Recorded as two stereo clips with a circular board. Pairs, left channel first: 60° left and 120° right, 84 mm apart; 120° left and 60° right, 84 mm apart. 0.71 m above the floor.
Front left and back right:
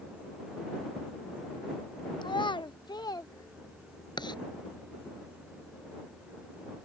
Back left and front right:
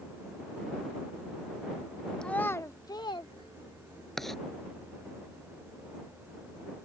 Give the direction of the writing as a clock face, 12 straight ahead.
11 o'clock.